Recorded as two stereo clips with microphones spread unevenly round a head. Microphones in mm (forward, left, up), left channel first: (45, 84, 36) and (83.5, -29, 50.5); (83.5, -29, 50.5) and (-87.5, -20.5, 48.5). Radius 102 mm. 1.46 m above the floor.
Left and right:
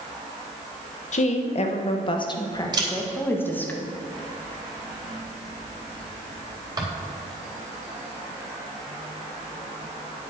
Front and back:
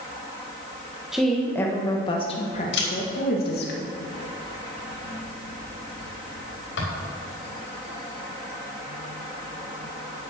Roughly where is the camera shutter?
Ahead.